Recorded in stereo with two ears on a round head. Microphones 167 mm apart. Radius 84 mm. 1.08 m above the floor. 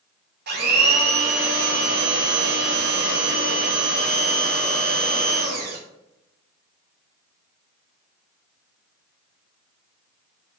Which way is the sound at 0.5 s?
55° right (ahead or behind).